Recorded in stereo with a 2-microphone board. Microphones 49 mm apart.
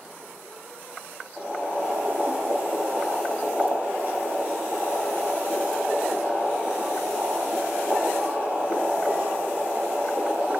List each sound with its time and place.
1.4 s boiling: 35° right (ahead or behind), 0.9 m